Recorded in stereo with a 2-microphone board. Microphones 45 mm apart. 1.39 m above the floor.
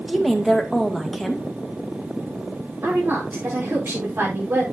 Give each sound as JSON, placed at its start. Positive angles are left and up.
{"t": 0.1, "sound": "a woman speaking", "side_deg": 0, "distance_m": 2.0}
{"t": 2.8, "sound": "a woman speaking", "side_deg": -60, "distance_m": 4.0}